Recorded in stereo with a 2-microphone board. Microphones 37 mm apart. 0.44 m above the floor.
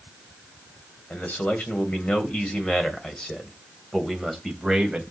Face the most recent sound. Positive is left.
turn(degrees=-5)  # may be behind; listen again after turning